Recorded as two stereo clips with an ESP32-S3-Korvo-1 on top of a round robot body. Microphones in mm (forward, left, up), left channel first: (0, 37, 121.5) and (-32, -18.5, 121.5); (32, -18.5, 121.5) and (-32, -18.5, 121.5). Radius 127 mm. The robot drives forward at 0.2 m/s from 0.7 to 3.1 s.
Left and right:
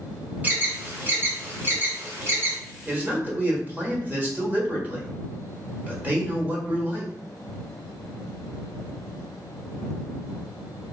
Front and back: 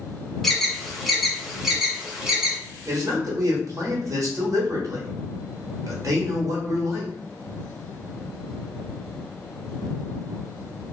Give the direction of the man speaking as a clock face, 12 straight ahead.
6 o'clock.